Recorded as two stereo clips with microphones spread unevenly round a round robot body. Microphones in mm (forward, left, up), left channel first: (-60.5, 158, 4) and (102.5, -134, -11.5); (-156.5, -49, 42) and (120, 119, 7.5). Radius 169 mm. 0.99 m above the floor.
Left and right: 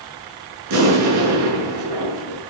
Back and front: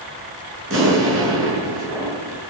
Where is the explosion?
25° right, 7.5 m.